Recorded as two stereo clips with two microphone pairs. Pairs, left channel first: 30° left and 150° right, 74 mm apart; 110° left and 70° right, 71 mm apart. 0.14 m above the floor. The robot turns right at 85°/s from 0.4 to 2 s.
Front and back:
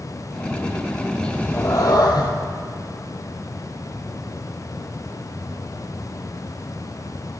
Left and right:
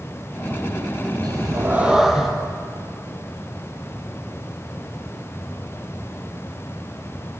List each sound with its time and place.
1.2 s a cat meowing: 55° right, 2 m; by 2.3 s 15° left, 2 m